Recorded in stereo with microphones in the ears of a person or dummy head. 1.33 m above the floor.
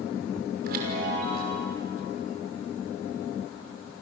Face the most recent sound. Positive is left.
turn(degrees=-55)  # may be behind; listen again after turning